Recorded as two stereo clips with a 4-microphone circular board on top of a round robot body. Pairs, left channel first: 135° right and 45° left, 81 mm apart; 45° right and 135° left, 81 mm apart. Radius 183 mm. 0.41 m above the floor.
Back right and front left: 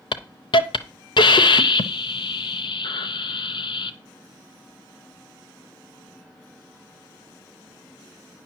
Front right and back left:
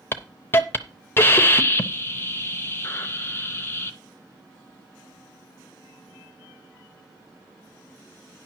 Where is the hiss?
110° right, 0.6 m.